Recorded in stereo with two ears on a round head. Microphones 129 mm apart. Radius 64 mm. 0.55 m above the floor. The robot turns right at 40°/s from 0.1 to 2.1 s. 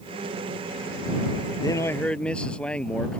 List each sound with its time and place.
1.6 s a man speaking: 25° left (ahead or behind); by 3.2 s 10° left (ahead or behind)